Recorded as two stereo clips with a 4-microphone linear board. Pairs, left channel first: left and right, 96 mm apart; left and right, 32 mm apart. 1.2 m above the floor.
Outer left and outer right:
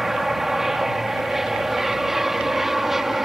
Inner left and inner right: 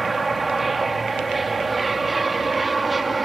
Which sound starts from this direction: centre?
An aircraft, at 0.0 s.